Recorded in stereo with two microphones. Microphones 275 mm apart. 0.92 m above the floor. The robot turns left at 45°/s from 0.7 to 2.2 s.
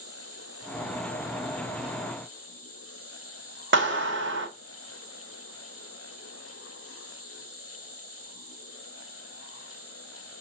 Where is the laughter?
No laughter in this recording.